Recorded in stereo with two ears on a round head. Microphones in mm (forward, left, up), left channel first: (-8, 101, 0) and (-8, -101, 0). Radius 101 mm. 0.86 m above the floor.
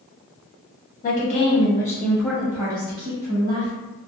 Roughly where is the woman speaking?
Left.